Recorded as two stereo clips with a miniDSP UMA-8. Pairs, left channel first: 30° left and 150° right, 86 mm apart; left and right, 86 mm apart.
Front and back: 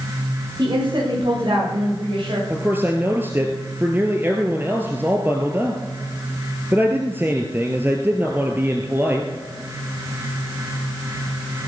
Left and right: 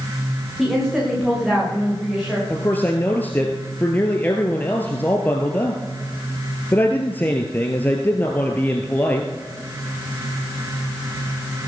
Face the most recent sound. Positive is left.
turn(degrees=150)